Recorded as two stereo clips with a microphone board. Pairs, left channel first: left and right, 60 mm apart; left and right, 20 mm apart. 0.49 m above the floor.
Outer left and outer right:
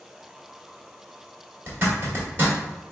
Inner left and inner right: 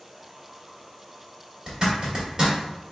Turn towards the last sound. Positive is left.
turn(degrees=-40)  # may be behind; listen again after turning